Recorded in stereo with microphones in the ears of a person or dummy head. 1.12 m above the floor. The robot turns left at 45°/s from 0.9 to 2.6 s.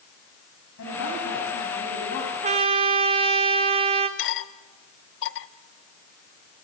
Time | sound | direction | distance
0.8 | a woman speaking | 105° left | 8 m
2.4 | a trumpet | 35° right (ahead or behind) | 1.2 m
4.2 | cutlery clinking | 65° left (ahead or behind) | 0.9 m